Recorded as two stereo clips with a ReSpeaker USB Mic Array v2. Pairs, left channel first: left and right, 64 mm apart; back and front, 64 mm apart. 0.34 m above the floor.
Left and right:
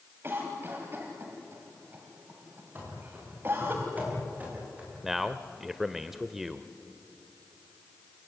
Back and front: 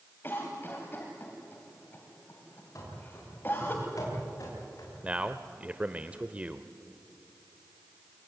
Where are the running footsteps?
145° right, 10 m; by 4.9 s 155° right, 10 m.